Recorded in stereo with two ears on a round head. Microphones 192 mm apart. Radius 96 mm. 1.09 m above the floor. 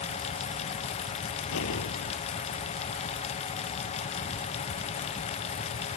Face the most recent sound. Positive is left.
turn(degrees=70)  # may be behind; listen again after turning